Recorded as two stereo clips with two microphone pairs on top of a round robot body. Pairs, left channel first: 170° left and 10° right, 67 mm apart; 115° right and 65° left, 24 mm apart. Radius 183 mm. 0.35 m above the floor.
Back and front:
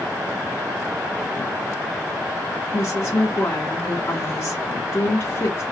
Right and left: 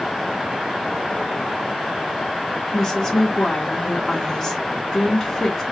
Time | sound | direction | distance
2.7 | a woman speaking | 165° right | 1.7 m